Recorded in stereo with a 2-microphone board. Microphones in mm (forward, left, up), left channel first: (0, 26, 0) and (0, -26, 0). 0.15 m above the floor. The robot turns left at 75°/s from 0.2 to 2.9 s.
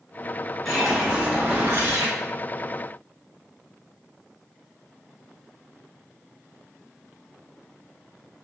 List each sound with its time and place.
0.7 s a whoosh: 10° left, 1.0 m; by 2.1 s 105° right, 1.0 m